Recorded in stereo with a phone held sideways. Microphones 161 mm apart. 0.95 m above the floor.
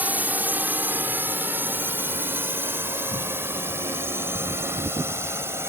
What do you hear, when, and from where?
0.0 s a drone: 10° right (ahead or behind); by 5.7 s 15° right (ahead or behind)